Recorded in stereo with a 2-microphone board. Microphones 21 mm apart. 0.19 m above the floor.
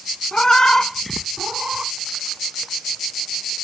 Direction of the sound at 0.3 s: 40° left (ahead or behind).